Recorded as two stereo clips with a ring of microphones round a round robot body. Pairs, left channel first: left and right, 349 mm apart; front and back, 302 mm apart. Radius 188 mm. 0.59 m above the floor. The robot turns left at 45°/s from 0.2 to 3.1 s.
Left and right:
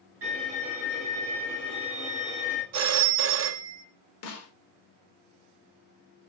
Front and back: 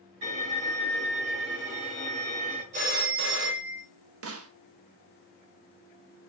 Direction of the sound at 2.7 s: 120° right.